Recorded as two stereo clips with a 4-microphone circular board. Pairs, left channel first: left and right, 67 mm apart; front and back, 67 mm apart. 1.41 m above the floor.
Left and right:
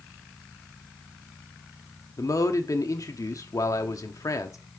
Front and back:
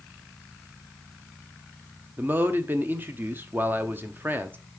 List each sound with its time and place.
2.2 s a man speaking: 120° left, 1.1 m